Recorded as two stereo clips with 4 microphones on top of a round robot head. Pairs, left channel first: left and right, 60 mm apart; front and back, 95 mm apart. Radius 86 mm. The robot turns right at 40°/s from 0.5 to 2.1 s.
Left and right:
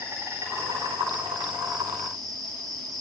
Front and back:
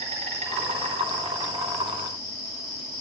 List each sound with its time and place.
0.0 s an insect: 160° right, 2 m; by 3.0 s 100° right, 2 m